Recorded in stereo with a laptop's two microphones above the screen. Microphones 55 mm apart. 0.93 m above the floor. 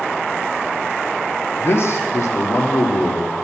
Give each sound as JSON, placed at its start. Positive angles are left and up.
{"t": 1.6, "sound": "a man speaking", "side_deg": 50, "distance_m": 1.4}